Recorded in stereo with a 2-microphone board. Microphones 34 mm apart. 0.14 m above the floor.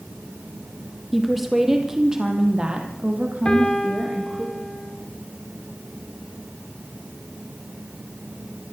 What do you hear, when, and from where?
1.1 s a woman speaking: centre (ahead or behind), 3.5 m; by 4.5 s 50° right (ahead or behind), 5 m
3.5 s a piano: 25° left (ahead or behind), 3 m